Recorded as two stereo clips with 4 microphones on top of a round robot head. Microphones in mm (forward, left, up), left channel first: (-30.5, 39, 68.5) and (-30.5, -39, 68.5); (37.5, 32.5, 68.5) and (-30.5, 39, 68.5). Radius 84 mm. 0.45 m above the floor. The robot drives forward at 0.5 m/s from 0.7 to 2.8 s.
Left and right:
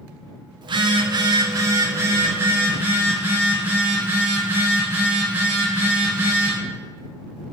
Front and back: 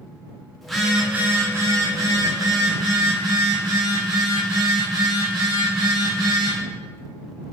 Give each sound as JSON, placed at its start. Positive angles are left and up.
{"t": 0.6, "sound": "a phone buzzing", "azimuth_deg": -95, "distance_m": 0.6}